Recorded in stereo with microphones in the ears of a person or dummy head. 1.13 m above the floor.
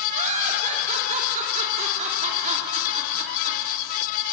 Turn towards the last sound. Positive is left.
turn(degrees=-40)  # may be behind; listen again after turning